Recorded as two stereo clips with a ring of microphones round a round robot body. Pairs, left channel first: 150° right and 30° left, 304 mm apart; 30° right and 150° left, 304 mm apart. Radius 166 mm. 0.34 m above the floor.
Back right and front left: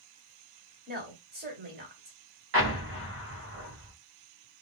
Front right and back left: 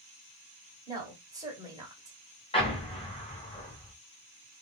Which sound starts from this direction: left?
A woman speaking, at 0.9 s.